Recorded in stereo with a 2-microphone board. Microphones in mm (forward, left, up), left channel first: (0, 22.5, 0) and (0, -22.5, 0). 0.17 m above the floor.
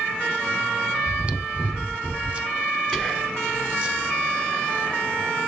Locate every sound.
1.1 s chewing: 25° right (ahead or behind), 0.6 m
2.9 s whispering: 10° left (ahead or behind), 1.2 m